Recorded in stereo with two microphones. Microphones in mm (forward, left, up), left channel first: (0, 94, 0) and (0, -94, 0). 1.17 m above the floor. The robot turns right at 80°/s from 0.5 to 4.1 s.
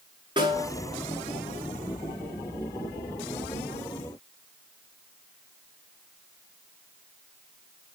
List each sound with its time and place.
0.4 s a snare drum: 25° right (ahead or behind), 6.5 m; by 0.7 s 40° right (ahead or behind), 6.5 m